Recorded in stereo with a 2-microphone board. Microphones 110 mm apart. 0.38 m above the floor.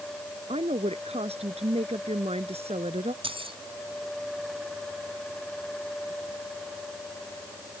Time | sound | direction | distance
0.5 | a woman speaking | 70° right (ahead or behind) | ?
3.2 | keys jangling | 60° right (ahead or behind) | ?